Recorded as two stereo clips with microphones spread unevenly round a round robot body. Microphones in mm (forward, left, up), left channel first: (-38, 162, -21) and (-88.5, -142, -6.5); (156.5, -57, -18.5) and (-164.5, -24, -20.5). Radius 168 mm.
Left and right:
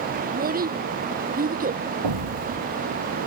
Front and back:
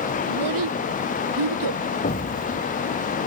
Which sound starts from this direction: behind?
A child speaking, at 0.3 s.